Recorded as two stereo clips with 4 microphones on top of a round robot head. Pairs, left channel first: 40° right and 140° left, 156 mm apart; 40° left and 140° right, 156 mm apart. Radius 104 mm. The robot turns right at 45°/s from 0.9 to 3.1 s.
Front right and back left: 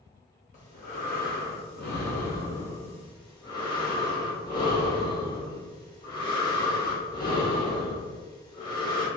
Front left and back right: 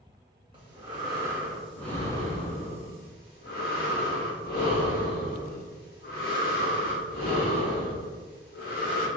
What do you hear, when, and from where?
0.5 s breathing: 80° right, 1.5 m; by 9.1 s 20° left, 1.5 m